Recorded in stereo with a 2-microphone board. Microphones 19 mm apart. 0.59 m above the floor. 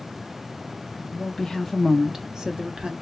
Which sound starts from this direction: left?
A woman speaking, at 1.1 s.